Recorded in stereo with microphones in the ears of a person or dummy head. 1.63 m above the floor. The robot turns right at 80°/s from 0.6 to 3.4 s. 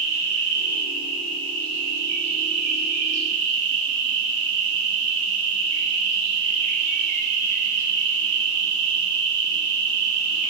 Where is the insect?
95° left, 1.0 m; by 10.5 s 45° right, 1.0 m.